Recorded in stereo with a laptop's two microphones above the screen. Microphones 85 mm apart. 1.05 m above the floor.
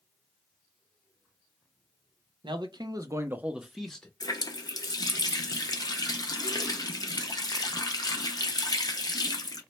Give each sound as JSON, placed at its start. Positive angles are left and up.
{"t": 2.4, "sound": "a man speaking", "side_deg": -65, "distance_m": 0.7}
{"t": 4.2, "sound": "a running tap", "side_deg": 50, "distance_m": 0.5}